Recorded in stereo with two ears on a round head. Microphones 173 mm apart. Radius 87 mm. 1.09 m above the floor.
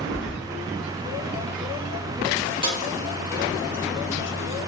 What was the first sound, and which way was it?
Keys jangling, 40° right (ahead or behind).